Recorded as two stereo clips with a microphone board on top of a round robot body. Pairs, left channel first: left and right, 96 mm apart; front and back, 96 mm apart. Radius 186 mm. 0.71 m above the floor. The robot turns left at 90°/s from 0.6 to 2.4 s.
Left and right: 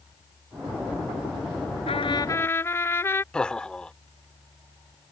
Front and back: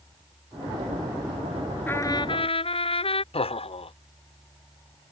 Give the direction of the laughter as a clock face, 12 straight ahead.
12 o'clock.